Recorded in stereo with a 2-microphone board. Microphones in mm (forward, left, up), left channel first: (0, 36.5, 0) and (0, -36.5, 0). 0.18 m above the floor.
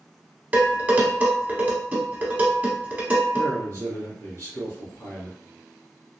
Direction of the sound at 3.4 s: 35° left (ahead or behind).